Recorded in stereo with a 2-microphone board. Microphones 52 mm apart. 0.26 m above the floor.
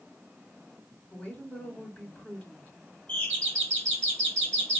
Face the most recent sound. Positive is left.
turn(degrees=20)  # may be behind; listen again after turning